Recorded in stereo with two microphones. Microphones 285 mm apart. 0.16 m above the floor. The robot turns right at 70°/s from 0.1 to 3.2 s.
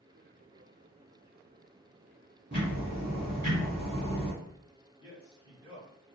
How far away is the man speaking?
About 1.5 m.